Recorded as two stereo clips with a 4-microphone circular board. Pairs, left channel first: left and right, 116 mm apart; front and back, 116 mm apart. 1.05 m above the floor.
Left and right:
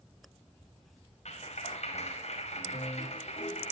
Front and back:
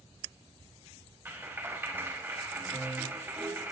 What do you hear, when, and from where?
1.2 s a clap: 110° left, 5 m